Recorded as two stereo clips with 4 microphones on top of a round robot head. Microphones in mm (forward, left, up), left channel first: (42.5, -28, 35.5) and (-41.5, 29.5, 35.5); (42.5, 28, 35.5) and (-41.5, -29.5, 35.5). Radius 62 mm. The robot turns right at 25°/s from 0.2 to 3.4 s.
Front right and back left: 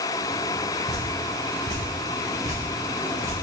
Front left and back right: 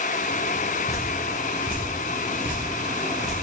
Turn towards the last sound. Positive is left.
turn(degrees=-175)